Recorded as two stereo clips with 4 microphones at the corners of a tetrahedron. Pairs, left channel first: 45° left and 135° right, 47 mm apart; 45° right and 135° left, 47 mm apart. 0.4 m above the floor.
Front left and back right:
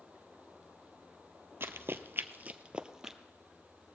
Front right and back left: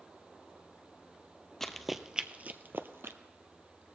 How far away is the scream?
No scream in this recording.